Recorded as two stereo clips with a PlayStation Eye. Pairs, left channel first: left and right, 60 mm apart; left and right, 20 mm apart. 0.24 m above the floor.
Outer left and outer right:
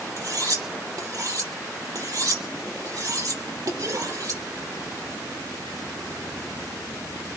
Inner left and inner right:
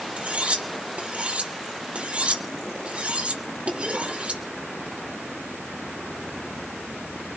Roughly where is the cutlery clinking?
Right.